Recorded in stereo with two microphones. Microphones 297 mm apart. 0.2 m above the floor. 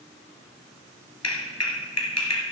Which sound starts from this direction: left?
A clap, at 1.2 s.